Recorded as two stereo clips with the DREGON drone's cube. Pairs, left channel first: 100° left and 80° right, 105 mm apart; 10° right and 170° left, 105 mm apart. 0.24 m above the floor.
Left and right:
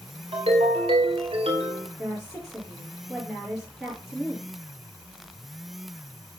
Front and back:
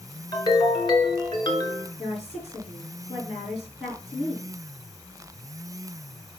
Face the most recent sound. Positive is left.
turn(degrees=5)